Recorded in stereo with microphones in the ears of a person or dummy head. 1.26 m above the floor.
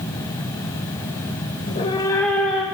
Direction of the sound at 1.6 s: 35° left (ahead or behind).